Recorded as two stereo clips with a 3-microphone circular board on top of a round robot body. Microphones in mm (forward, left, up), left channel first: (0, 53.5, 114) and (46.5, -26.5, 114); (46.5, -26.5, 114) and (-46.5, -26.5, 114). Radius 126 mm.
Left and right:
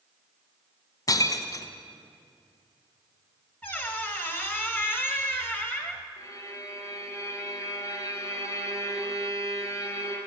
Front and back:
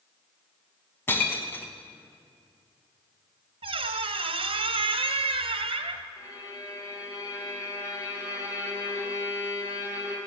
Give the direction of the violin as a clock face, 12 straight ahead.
10 o'clock.